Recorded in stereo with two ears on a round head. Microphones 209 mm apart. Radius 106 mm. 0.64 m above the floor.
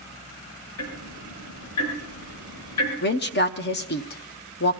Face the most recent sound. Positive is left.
turn(degrees=45)  # may be behind; listen again after turning